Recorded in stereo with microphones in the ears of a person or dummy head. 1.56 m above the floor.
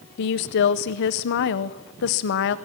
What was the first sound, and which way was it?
A woman speaking, 60° left (ahead or behind).